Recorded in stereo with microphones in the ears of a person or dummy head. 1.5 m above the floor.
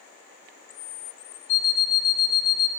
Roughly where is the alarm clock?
Left.